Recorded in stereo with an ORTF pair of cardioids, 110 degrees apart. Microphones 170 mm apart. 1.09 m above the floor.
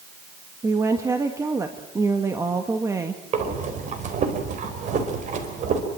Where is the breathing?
45° right, 4.5 m.